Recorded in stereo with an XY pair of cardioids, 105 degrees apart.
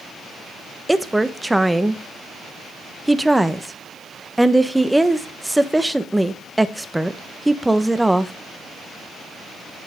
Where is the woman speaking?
10° right, 1.0 m.